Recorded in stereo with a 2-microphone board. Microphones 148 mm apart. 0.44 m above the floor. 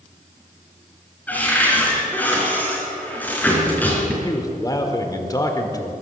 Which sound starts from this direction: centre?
A cupboard door, at 1.3 s.